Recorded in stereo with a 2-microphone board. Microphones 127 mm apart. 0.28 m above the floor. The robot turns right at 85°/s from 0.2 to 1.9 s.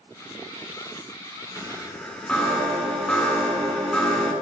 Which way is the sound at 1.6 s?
20° right (ahead or behind).